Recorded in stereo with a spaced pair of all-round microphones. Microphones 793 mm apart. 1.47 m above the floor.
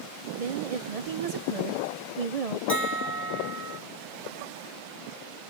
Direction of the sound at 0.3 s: 50° right (ahead or behind).